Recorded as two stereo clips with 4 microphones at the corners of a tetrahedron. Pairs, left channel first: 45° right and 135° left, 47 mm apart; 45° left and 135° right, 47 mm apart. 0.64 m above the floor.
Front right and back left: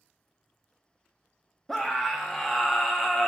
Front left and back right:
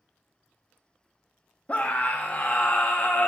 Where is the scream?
35° left, 0.5 m.